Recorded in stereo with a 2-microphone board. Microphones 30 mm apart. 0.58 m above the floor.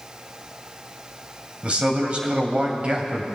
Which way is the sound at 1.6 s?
40° right (ahead or behind).